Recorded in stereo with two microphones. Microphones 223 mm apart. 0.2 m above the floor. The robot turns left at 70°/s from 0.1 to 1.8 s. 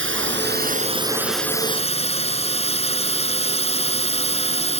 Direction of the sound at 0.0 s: 95° right.